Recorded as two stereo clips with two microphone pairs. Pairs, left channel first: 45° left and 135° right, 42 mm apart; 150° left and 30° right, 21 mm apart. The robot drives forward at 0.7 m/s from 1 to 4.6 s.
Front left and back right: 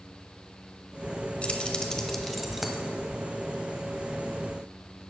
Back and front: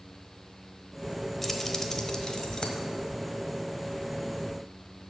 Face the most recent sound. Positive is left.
turn(degrees=165)